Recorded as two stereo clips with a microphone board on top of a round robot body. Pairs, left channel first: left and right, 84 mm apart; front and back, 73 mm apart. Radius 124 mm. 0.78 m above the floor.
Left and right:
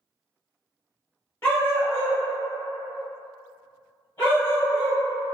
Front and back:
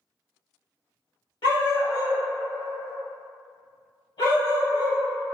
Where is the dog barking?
25° left, 1.1 m.